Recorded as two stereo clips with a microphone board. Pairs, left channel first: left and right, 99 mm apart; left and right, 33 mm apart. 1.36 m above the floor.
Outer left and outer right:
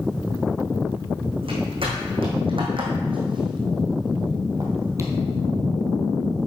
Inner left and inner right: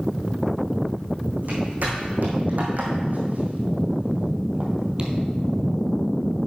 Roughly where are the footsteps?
Right.